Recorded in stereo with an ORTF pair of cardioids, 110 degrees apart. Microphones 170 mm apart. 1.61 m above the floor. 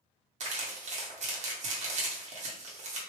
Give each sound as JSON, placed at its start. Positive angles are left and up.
{"t": 0.4, "sound": "crumpling", "azimuth_deg": -45, "distance_m": 1.3}